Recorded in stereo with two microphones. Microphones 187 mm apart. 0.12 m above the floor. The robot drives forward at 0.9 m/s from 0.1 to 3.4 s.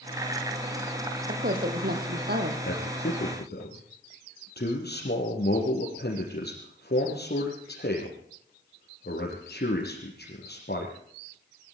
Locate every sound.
1.3 s a woman speaking: 50° right (ahead or behind), 4 m; by 2.5 s 60° right (ahead or behind), 3.5 m
2.6 s a man speaking: 65° left (ahead or behind), 4 m; by 10.9 s 60° left (ahead or behind), 4.5 m